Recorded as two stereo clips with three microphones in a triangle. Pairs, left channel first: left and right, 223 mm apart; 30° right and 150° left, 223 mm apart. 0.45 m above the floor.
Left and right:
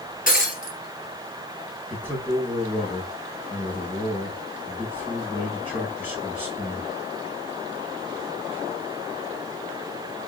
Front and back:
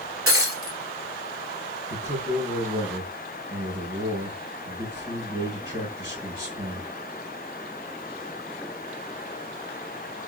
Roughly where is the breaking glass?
Behind left.